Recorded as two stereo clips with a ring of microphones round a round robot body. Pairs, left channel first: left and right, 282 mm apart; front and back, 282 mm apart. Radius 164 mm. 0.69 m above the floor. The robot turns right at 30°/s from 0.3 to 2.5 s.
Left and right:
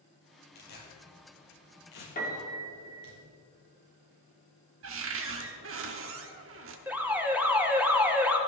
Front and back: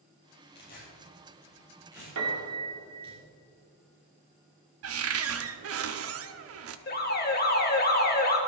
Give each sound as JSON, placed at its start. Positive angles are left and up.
{"t": 0.6, "sound": "tearing paper", "azimuth_deg": 60, "distance_m": 4.5}
{"t": 2.1, "sound": "a piano", "azimuth_deg": 150, "distance_m": 2.0}
{"t": 4.8, "sound": "a cupboard door", "azimuth_deg": -140, "distance_m": 0.8}
{"t": 6.9, "sound": "an alarm", "azimuth_deg": -10, "distance_m": 1.7}